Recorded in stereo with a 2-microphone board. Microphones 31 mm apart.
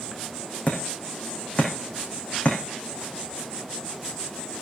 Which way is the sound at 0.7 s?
45° left (ahead or behind).